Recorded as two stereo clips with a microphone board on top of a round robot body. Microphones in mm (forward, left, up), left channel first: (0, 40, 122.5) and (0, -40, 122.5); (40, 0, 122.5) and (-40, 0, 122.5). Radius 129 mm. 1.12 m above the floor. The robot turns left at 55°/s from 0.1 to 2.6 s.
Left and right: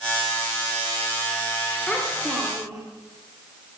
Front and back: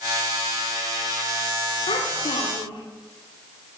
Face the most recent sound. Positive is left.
turn(degrees=-30)